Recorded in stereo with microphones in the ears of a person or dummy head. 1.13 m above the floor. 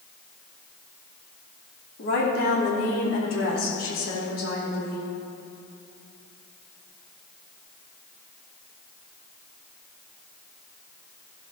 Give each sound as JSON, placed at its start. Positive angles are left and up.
{"t": 2.0, "sound": "a woman speaking", "side_deg": 70, "distance_m": 3.0}